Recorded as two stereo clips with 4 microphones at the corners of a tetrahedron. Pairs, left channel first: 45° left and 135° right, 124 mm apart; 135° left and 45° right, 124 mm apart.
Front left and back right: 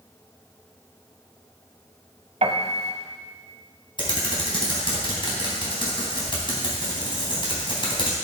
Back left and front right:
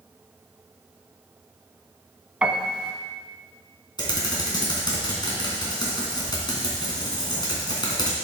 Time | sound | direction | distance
2.4 | a piano | 125° right | 1.3 m
4.0 | typing on a keyboard | 85° left | 2.5 m